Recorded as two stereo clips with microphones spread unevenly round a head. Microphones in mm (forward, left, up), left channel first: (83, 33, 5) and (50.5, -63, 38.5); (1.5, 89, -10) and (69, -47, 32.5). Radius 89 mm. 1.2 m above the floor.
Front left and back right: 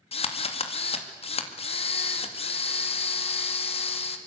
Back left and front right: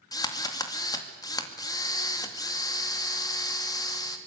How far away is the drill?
About 2.5 m.